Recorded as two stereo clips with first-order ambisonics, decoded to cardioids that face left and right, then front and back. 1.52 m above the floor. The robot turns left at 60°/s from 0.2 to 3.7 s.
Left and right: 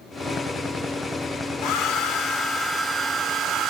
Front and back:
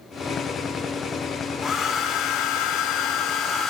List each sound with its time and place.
1.6 s a hair dryer: 65° left, 0.6 m; by 3.7 s 60° right, 0.6 m